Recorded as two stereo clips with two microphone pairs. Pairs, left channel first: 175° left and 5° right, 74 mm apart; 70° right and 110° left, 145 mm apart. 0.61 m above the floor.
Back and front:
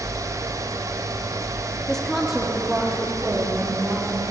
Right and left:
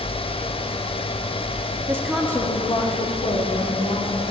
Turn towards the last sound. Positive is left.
turn(degrees=-80)